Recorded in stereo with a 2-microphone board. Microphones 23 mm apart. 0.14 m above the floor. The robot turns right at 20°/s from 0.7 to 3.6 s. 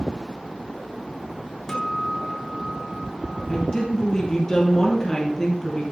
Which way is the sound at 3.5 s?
25° left (ahead or behind).